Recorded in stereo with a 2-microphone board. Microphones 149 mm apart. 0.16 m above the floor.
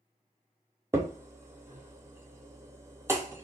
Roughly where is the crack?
Centre.